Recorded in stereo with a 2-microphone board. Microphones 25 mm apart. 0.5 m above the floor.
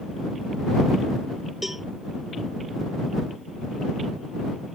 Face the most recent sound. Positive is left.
turn(degrees=-10)  # may be behind; listen again after turning